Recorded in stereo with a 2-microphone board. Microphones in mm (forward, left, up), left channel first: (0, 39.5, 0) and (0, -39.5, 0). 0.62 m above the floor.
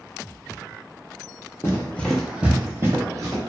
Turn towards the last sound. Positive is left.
turn(degrees=-50)  # may be behind; listen again after turning